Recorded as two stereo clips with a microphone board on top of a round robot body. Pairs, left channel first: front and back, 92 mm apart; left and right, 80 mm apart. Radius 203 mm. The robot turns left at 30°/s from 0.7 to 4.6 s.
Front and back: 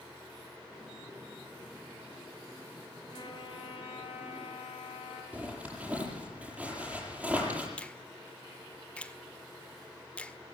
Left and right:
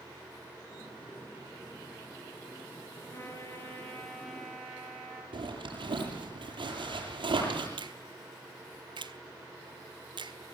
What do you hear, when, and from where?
3.1 s a trumpet: 35° left, 6 m; by 5.2 s 10° right, 6 m
5.3 s a zipper: 105° right, 8.5 m
7.8 s a finger snap: 75° right, 1.7 m